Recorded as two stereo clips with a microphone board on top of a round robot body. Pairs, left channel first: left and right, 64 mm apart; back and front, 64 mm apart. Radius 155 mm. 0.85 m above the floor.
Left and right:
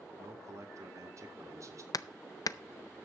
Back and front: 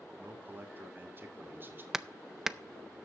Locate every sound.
0.2 s a man speaking: 55° right, 2 m
1.9 s hammering: 85° left, 0.6 m